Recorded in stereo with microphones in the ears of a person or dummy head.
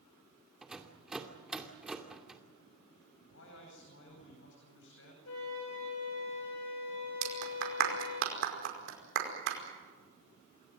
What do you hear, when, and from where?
0.6 s a rattle: centre (ahead or behind), 2 m
3.3 s a man speaking: 65° left (ahead or behind), 9 m
5.2 s a flute: 75° left (ahead or behind), 9 m
7.2 s a clap: 60° right (ahead or behind), 5 m